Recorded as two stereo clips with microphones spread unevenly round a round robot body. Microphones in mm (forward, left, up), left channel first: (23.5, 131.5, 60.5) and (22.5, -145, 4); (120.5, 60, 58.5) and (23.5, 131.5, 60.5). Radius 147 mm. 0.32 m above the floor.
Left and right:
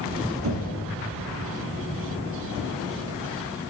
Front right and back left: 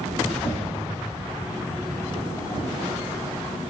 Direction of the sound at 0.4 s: 90° right.